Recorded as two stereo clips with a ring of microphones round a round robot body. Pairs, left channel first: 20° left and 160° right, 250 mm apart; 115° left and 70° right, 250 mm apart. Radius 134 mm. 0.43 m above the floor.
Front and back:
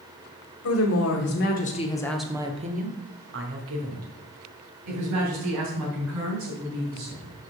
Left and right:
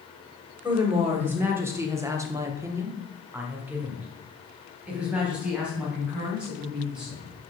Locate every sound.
0.6 s a woman speaking: 15° left, 1.7 m; by 7.3 s 155° right, 5 m